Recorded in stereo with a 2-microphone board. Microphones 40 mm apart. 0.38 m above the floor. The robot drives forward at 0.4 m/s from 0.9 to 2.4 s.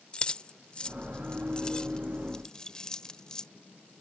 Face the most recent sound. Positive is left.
turn(degrees=20)  # may be behind; listen again after turning